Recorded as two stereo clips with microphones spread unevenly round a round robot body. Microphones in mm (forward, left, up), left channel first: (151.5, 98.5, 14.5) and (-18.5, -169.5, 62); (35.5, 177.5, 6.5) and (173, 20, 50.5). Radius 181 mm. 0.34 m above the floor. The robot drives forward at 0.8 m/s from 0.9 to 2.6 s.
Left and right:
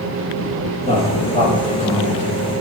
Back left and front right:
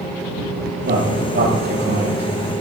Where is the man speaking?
10° right, 7.5 m.